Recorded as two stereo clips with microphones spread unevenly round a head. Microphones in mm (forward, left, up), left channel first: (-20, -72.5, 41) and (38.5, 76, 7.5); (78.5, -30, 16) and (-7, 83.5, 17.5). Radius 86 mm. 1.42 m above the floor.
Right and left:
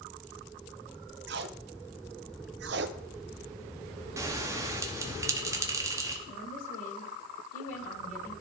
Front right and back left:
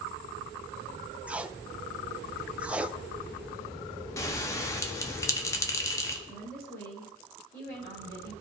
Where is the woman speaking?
95° right, 3.5 m.